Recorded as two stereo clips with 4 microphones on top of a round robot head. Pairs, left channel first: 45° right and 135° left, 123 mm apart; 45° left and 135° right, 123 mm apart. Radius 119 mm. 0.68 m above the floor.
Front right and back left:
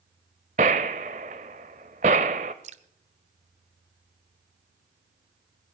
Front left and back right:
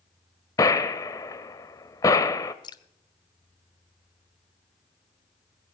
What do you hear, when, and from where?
0.6 s a gunshot: 105° left, 0.5 m
2.6 s dripping: 100° left, 0.9 m